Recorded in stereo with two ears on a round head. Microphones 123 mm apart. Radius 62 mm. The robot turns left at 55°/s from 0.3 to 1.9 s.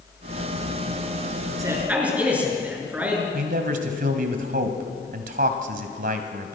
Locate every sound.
1.6 s a man speaking: 30° right (ahead or behind), 6.5 m; by 3.2 s 10° right (ahead or behind), 6.5 m
3.3 s a man speaking: 65° right (ahead or behind), 2.5 m